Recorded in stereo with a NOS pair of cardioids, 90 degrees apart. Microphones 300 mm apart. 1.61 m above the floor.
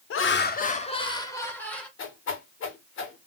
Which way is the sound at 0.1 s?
45° left.